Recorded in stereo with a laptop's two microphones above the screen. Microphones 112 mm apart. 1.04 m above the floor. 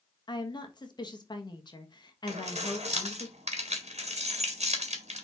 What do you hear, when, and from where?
0.3 s a woman speaking: 40° left (ahead or behind), 1.2 m
2.3 s keys jangling: 80° right, 1.9 m